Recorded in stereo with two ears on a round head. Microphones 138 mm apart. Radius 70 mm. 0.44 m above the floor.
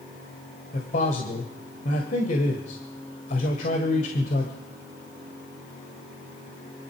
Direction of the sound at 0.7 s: 50° left (ahead or behind).